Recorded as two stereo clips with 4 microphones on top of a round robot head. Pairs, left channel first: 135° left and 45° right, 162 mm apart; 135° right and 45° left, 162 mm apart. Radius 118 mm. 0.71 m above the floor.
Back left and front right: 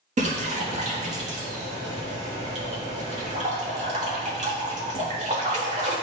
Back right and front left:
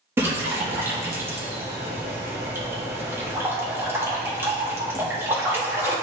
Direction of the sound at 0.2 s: 25° right.